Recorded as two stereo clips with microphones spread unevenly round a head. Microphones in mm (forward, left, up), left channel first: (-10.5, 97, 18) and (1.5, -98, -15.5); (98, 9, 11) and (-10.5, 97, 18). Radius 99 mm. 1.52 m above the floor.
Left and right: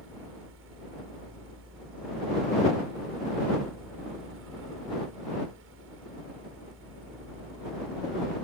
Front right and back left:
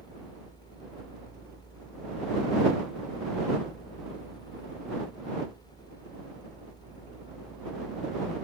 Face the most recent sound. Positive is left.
turn(degrees=-110)